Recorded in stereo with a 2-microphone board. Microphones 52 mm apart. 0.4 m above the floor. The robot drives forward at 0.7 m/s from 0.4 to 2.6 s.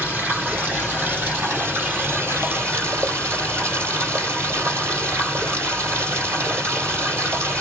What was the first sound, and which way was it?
Running water, 30° right (ahead or behind).